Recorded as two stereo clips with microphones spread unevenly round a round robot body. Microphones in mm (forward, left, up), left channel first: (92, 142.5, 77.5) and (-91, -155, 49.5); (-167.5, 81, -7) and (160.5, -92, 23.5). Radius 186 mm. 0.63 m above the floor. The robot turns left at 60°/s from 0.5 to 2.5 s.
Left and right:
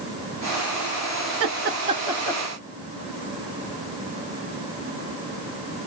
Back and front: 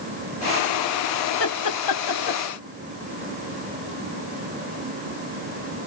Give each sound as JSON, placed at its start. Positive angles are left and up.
{"t": 1.4, "sound": "laughter", "azimuth_deg": -160, "distance_m": 1.1}